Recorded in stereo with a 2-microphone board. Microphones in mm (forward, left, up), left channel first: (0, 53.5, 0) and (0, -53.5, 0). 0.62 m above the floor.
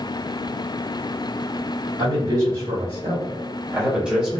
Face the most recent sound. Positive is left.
turn(degrees=0)  # may be behind; listen again after turning